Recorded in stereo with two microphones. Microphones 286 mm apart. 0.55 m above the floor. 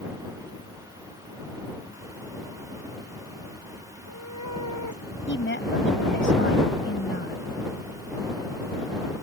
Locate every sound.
3.9 s a cat meowing: 90° left
5.3 s a woman speaking: 45° left (ahead or behind)